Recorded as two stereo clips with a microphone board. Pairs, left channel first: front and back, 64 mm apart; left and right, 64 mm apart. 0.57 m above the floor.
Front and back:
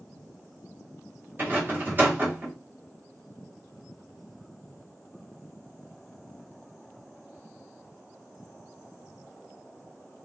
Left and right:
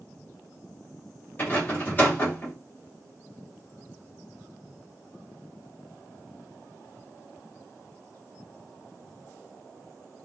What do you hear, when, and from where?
1.4 s a rattle: 135° left, 1.1 m